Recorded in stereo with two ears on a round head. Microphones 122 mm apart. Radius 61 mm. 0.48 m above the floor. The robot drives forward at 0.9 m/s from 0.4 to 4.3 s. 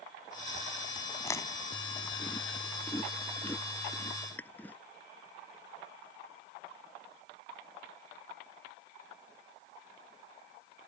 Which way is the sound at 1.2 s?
20° left (ahead or behind).